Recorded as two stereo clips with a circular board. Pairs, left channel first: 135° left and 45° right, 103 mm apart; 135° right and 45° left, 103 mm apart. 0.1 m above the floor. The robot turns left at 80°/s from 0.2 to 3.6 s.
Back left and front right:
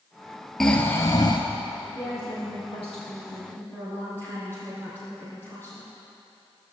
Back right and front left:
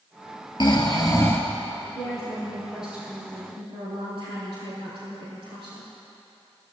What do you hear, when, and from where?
0.6 s snoring: 140° right, 1.6 m; by 1.4 s 155° left, 1.6 m
1.9 s a woman speaking: 160° right, 4 m; by 5.9 s 70° left, 4 m